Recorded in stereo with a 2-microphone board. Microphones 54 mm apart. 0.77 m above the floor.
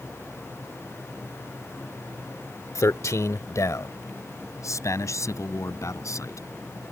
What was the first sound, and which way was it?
A man speaking, 70° left (ahead or behind).